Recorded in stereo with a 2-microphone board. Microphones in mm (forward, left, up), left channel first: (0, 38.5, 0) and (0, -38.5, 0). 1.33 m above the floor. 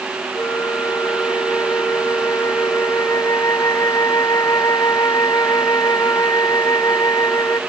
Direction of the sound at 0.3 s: 55° left (ahead or behind).